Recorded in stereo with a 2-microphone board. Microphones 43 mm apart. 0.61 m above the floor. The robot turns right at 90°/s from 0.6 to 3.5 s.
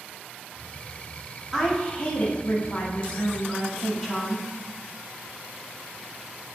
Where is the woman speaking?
Straight ahead, 0.8 m; by 4.5 s 175° left, 0.8 m.